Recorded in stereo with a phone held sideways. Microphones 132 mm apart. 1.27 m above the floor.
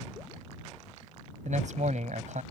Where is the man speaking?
65° right (ahead or behind).